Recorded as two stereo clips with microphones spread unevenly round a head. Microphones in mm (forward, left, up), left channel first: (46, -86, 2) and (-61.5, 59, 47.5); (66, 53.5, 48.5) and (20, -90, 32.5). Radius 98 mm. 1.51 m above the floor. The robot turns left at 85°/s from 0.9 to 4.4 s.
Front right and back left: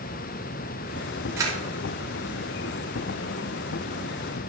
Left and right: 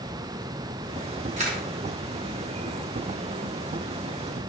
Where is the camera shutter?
155° right, 4 m; by 1.6 s 175° right, 4 m.